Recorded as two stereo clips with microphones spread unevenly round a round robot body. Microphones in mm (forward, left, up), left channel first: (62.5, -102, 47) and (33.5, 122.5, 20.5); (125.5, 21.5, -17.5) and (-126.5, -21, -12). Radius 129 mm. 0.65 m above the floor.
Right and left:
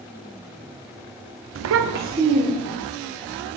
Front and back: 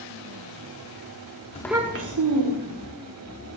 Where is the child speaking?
75° left, 0.6 m; by 2.9 s straight behind, 1.8 m.